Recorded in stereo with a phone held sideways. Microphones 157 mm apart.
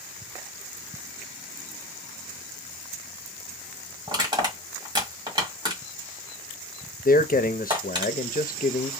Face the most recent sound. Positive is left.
turn(degrees=65)  # may be behind; listen again after turning